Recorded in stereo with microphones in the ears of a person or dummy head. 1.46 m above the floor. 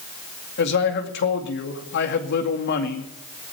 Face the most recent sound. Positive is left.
turn(degrees=55)  # may be behind; listen again after turning